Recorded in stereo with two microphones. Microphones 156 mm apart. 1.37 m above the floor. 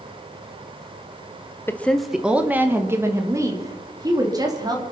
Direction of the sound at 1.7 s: 15° left (ahead or behind).